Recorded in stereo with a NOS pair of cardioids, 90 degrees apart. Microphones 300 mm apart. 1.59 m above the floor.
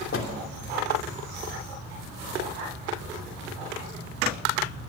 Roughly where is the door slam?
Ahead left.